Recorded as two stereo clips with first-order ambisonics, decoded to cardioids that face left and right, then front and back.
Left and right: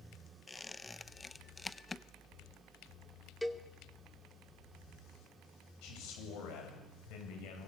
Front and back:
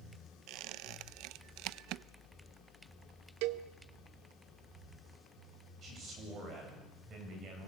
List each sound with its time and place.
0.5 s a squeak: 165° left, 0.5 m
3.4 s a cowbell: 175° left, 1.1 m
5.8 s a man speaking: 120° left, 8.5 m